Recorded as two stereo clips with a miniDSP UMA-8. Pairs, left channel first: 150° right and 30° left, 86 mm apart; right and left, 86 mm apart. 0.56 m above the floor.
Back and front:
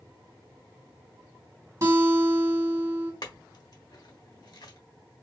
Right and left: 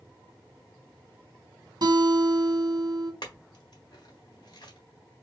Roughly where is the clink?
Behind right.